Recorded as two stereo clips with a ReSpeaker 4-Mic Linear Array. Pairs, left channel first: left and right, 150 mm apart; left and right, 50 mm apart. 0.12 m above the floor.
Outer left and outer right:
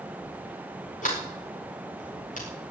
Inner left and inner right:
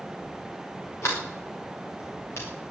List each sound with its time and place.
1.0 s a sliding door: 60° left (ahead or behind), 6 m